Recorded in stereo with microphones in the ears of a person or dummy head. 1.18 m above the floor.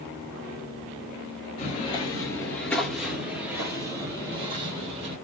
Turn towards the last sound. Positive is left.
turn(degrees=-35)  # may be behind; listen again after turning